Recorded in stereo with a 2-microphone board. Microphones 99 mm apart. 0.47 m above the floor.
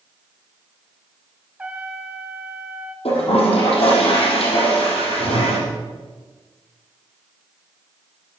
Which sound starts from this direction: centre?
A trumpet, at 1.6 s.